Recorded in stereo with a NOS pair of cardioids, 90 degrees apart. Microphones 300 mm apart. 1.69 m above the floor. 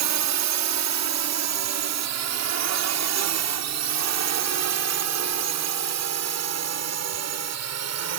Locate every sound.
0.0 s a drone: 70° right; by 8.2 s 60° right